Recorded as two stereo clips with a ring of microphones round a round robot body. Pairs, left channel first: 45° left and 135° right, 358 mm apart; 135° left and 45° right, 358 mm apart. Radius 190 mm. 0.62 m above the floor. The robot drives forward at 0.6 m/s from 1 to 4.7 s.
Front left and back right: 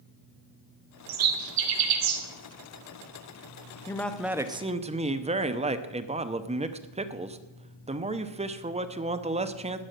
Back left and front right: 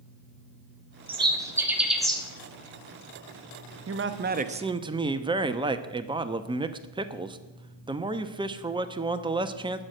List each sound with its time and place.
1.1 s a bird: 120° right, 1.6 m; by 2.2 s 135° right, 2.0 m
3.9 s a man speaking: 30° right, 1.0 m; by 9.8 s 100° right, 0.8 m